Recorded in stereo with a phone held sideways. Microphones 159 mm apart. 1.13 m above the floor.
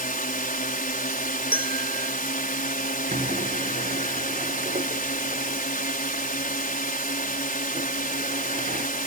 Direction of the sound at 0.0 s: 65° left (ahead or behind).